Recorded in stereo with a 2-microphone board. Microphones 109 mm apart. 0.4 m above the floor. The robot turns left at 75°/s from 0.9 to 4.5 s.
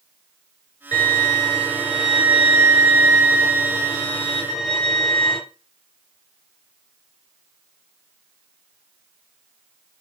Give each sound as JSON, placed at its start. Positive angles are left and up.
{"t": 0.9, "sound": "a violin", "azimuth_deg": 85, "distance_m": 2.5}